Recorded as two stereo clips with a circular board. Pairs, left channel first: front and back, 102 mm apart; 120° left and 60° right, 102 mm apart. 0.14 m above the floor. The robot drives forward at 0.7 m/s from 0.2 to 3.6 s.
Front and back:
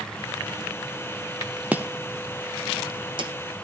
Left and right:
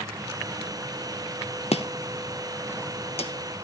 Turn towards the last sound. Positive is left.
turn(degrees=145)